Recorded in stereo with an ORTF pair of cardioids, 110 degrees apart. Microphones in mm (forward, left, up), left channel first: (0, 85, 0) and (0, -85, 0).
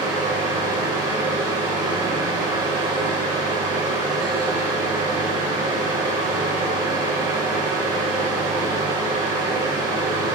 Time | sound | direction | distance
0.0 | a fan | 25° right | 1.0 m